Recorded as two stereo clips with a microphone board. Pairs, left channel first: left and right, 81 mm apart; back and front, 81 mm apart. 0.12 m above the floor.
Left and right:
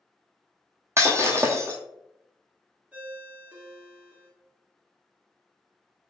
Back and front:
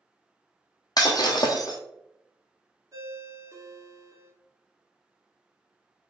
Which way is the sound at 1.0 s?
145° right.